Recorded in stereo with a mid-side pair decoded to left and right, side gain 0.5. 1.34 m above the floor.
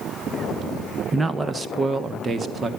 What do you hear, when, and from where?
1.1 s a man speaking: 15° right, 1.0 m; by 2.7 s 35° right, 2 m